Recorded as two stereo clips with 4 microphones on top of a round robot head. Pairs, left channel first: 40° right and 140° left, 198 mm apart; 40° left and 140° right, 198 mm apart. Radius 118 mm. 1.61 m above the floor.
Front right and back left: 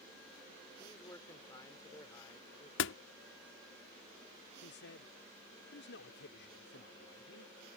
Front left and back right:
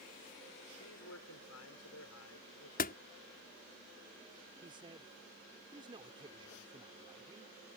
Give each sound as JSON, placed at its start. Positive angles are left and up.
{"t": 0.8, "sound": "a man speaking", "azimuth_deg": 35}
{"t": 2.8, "sound": "a door slam", "azimuth_deg": -10}
{"t": 4.6, "sound": "a man speaking", "azimuth_deg": -70}